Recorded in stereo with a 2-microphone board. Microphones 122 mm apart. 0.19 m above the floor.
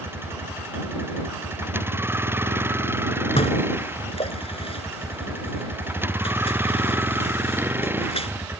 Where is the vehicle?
20° right (ahead or behind); by 8.6 s 15° right (ahead or behind).